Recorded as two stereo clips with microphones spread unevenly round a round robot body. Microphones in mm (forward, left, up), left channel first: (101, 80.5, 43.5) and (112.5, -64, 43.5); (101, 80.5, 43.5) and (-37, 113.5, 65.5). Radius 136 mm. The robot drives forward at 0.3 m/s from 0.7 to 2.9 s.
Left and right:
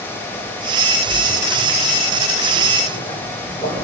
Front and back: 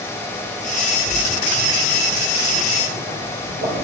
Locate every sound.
1.0 s a splash: 145° right, 2 m; by 3.8 s 155° right, 2.5 m